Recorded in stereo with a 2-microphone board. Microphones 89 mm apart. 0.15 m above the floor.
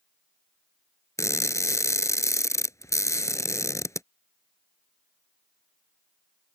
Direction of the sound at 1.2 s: 35° left (ahead or behind).